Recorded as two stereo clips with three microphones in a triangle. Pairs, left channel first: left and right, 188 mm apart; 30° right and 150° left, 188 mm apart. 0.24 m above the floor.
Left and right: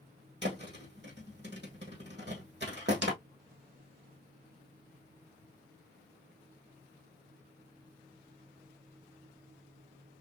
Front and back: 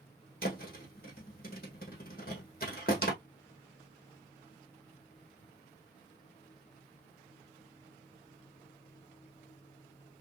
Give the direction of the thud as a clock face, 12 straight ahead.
2 o'clock.